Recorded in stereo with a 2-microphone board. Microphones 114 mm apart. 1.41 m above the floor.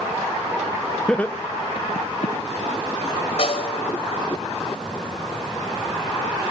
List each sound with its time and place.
1.1 s laughter: 5° left (ahead or behind), 0.9 m; by 2.4 s 75° left (ahead or behind), 0.8 m
3.4 s a snare drum: 55° left (ahead or behind), 3 m